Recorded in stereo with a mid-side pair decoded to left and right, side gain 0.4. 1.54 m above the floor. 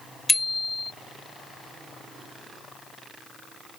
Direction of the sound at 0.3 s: 25° left.